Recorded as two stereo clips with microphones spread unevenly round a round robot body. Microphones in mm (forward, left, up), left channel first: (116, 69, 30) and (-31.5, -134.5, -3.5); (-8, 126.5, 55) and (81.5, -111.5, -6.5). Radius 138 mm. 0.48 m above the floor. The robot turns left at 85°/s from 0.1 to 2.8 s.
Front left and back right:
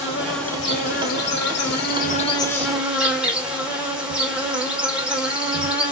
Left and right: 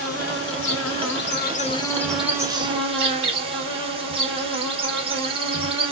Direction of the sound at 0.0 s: 175° left.